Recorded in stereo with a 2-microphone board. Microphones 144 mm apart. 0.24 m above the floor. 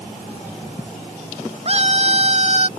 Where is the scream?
45° right (ahead or behind).